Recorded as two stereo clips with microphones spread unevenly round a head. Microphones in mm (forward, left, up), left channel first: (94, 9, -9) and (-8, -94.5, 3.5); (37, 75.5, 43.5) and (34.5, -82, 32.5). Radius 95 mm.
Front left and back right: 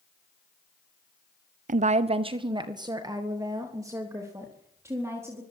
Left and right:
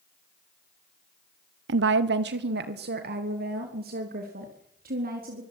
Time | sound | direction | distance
1.7 | a woman speaking | 100° right | 0.8 m